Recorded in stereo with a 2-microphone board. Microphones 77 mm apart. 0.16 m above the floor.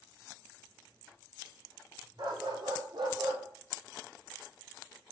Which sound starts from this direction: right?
A dog barking, at 2.2 s.